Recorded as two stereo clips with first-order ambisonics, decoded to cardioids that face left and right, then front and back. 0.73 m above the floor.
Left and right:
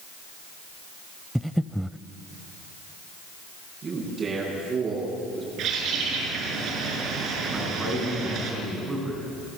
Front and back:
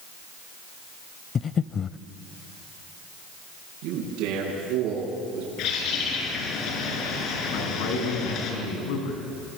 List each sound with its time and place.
1.4 s breathing: straight ahead, 0.5 m
3.8 s a man speaking: 155° right, 9 m
5.6 s a bird: 40° right, 5.5 m
7.5 s a man speaking: 10° right, 7 m